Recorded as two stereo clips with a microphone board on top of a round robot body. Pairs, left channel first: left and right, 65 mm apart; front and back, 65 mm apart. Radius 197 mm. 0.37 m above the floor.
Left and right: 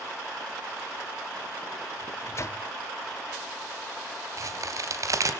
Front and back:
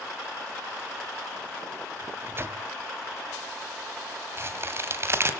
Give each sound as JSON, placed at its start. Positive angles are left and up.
{"t": 2.0, "sound": "a microwave", "azimuth_deg": 130, "distance_m": 1.8}
{"t": 4.4, "sound": "a crack", "azimuth_deg": -130, "distance_m": 3.0}